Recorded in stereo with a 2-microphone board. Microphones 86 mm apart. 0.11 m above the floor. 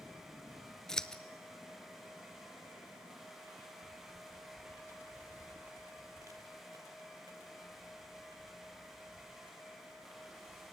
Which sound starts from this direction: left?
Footsteps, at 3.6 s.